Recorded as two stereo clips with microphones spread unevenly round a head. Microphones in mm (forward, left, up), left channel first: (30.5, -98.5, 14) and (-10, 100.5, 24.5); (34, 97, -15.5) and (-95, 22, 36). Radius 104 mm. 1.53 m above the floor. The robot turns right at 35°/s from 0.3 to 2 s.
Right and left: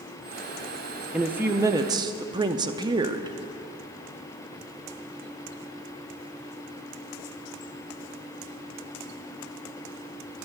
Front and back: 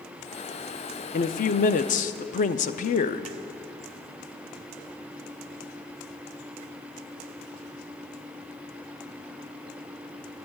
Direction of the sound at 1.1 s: 25° left.